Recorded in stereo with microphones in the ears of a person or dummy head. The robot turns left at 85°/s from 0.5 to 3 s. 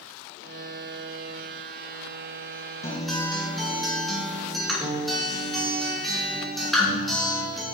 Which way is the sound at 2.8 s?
15° left (ahead or behind).